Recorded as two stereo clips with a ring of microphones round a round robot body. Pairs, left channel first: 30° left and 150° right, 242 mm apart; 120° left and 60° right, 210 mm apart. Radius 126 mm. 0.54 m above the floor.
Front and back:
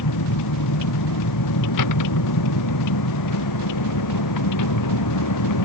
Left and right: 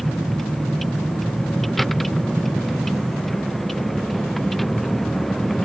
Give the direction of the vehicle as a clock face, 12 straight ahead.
11 o'clock.